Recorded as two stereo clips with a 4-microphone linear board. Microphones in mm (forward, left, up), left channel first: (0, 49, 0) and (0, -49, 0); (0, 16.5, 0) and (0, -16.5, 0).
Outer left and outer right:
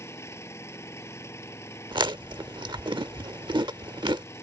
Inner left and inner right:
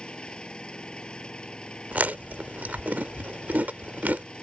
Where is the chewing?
55° right (ahead or behind).